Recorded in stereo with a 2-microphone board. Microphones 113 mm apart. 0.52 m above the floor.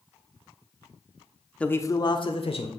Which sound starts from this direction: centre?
A man speaking, at 1.6 s.